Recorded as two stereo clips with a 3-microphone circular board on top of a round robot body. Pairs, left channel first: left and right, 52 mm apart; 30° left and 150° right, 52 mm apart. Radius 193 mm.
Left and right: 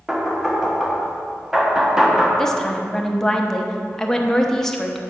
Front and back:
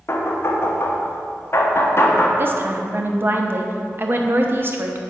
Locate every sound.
0.1 s knocking: 10° right, 1.1 m
2.4 s a woman speaking: 170° left, 1.2 m